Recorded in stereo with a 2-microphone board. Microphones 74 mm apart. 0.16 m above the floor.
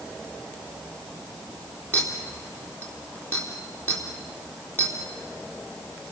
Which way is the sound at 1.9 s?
30° left (ahead or behind).